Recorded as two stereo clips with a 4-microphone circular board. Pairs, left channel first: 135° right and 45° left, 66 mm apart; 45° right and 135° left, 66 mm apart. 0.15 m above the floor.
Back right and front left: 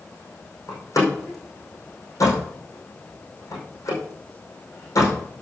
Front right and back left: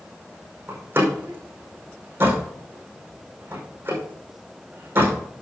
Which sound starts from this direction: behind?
A door slam, at 0.7 s.